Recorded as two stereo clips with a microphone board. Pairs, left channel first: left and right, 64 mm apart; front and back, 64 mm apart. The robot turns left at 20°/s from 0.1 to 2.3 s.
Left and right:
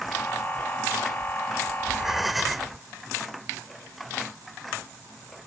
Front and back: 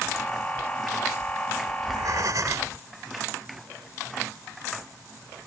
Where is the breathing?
170° right; by 2.8 s straight behind.